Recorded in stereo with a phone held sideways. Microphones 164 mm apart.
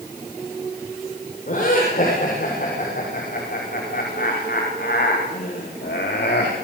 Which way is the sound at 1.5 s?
55° left (ahead or behind).